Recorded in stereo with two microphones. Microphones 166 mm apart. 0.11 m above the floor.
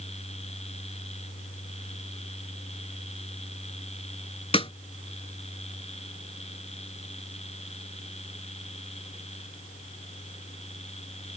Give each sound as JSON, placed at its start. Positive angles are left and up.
{"t": 4.5, "sound": "a snare drum", "side_deg": 35}